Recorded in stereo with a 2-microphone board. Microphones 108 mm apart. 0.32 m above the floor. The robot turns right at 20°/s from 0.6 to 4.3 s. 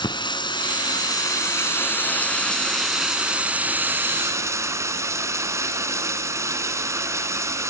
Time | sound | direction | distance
0.0 | running water | 135° left | 1.4 m